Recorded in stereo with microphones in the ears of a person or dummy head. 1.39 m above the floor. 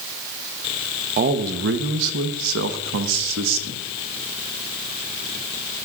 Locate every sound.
1.2 s a man speaking: 45° right (ahead or behind), 1.0 m; by 3.8 s 70° right (ahead or behind), 1.6 m